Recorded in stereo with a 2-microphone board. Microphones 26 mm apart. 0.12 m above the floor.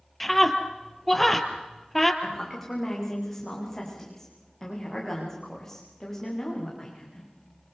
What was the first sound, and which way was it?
A scream, 5° left (ahead or behind).